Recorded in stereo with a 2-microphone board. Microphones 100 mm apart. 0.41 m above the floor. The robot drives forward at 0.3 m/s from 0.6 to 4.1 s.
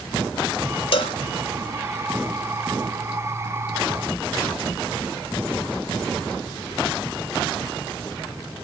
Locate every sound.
0.9 s a cowbell: 65° left (ahead or behind), 0.6 m; by 1.2 s 70° left (ahead or behind), 0.6 m